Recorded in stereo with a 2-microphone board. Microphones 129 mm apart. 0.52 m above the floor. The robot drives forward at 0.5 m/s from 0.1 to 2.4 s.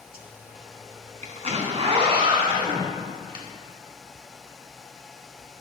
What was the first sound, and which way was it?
A zipper, 80° right.